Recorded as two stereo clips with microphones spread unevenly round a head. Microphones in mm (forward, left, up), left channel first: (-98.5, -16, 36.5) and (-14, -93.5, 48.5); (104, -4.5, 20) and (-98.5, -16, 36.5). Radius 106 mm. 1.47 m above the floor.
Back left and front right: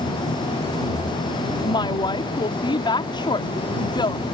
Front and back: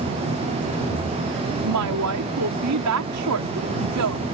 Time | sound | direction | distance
1.6 | a woman speaking | 175° right | ?